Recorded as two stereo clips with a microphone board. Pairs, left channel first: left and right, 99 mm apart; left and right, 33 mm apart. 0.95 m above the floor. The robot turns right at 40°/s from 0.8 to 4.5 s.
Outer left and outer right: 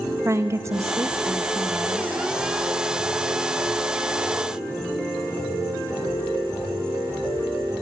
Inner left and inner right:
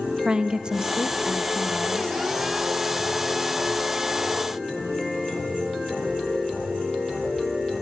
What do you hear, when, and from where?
0.2 s a woman speaking: 35° right, 1.2 m; by 2.2 s 20° left, 1.2 m